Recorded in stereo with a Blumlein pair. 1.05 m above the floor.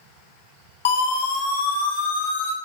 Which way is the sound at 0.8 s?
55° left.